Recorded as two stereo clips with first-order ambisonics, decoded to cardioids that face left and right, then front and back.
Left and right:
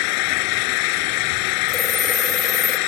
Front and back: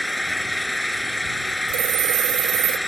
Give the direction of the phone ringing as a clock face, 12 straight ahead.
6 o'clock.